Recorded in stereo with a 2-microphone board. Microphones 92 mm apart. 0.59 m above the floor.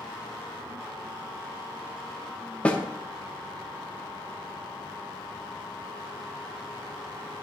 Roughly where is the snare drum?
Centre.